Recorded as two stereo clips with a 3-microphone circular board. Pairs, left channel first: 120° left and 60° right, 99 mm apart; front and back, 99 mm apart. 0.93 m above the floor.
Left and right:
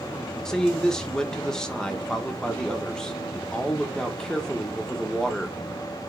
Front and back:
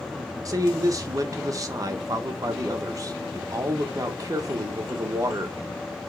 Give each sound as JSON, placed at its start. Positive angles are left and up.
{"t": 0.5, "sound": "a man speaking", "azimuth_deg": -160, "distance_m": 1.1}